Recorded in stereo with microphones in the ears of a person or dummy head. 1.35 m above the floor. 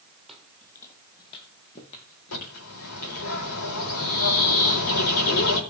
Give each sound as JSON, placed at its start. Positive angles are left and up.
{"t": 0.3, "sound": "footsteps", "side_deg": 0, "distance_m": 2.5}
{"t": 2.3, "sound": "a bird", "side_deg": 80, "distance_m": 4.5}